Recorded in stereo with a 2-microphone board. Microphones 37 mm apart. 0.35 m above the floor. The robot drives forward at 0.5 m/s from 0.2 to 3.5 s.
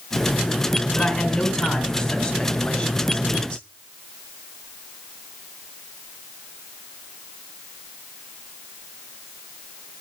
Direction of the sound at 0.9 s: 10° left (ahead or behind).